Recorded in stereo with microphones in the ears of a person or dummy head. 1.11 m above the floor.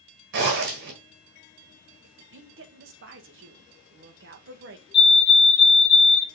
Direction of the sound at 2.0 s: 55° right (ahead or behind).